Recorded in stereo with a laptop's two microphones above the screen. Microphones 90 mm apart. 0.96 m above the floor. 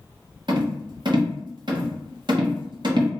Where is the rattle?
55° right (ahead or behind), 0.6 m.